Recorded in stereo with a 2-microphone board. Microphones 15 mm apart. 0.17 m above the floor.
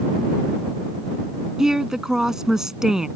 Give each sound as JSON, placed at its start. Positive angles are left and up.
{"t": 1.6, "sound": "a woman speaking", "side_deg": -40}